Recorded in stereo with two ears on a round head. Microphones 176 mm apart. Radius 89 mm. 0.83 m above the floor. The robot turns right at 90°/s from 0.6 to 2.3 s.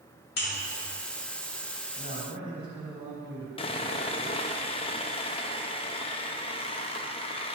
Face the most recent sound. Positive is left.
turn(degrees=25)  # may be behind; listen again after turning